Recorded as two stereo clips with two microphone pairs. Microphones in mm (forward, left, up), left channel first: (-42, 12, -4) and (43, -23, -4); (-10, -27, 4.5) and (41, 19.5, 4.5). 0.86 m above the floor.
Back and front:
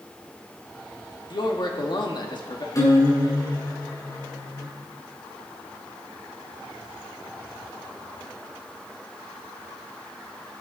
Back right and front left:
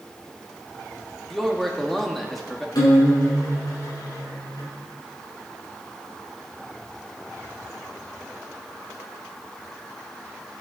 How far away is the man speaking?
About 1.9 m.